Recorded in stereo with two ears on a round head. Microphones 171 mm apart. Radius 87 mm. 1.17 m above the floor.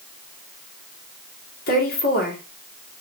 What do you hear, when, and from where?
1.7 s a woman speaking: 55° left (ahead or behind), 2.5 m